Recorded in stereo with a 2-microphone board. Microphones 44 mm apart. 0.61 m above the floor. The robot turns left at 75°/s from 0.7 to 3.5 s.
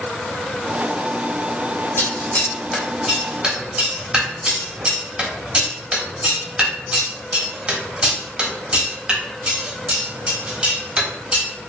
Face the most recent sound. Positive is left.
turn(degrees=-20)  # may be behind; listen again after turning